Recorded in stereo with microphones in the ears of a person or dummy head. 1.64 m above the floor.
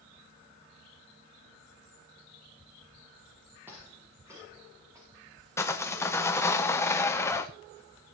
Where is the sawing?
15° left (ahead or behind), 1.2 m.